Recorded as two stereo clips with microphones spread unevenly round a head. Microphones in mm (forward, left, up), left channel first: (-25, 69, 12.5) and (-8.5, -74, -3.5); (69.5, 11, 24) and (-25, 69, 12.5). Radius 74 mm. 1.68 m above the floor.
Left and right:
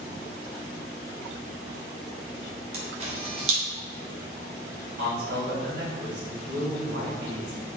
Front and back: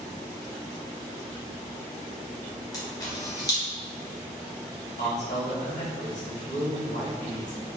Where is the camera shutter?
55° right, 1.1 m.